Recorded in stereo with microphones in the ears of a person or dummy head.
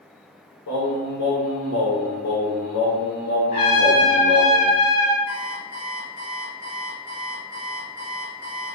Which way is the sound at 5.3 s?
55° left (ahead or behind).